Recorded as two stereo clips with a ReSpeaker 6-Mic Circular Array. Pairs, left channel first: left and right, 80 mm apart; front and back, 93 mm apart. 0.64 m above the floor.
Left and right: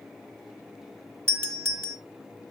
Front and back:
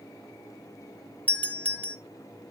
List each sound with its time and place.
1.3 s a doorbell: 60° right, 1.3 m